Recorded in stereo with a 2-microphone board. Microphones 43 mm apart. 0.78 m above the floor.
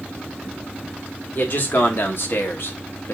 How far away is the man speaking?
About 1.6 m.